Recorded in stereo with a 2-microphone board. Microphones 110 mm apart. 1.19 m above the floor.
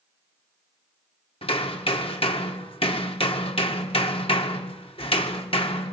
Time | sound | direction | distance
1.4 | hammering | 60° left (ahead or behind) | 2 m